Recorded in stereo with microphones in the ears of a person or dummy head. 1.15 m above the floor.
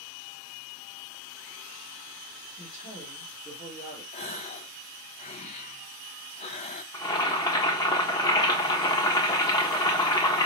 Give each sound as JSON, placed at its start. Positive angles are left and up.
{"t": 2.6, "sound": "a woman speaking", "side_deg": 50, "distance_m": 2.5}
{"t": 4.1, "sound": "a gasp", "side_deg": 35, "distance_m": 0.6}
{"t": 6.9, "sound": "boiling", "side_deg": 20, "distance_m": 1.1}